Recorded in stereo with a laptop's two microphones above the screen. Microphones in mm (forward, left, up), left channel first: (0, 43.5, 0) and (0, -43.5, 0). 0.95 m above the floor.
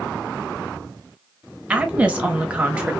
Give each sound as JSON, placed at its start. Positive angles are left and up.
{"t": 1.7, "sound": "a woman speaking", "side_deg": -15, "distance_m": 0.9}